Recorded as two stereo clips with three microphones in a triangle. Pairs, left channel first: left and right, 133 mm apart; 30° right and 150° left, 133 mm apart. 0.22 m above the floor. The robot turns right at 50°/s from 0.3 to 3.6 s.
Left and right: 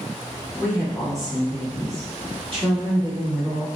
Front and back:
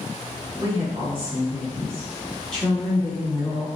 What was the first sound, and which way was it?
A woman speaking, 150° left.